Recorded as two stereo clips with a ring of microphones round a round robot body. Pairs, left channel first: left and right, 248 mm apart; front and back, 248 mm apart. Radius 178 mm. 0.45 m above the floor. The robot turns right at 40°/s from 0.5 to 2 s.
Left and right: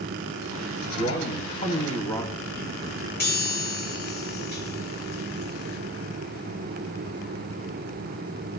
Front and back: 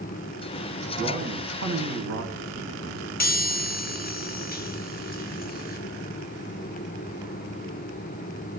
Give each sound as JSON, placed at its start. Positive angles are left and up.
{"t": 1.0, "sound": "a man speaking", "azimuth_deg": 125, "distance_m": 2.5}
{"t": 3.2, "sound": "a chime", "azimuth_deg": 45, "distance_m": 1.2}